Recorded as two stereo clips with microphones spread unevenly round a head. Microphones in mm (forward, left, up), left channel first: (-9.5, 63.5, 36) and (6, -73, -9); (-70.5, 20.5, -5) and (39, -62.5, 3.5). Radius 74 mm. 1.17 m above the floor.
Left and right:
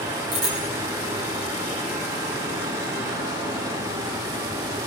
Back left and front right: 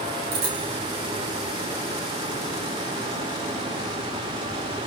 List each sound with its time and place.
0.3 s a bicycle bell: 60° right, 7 m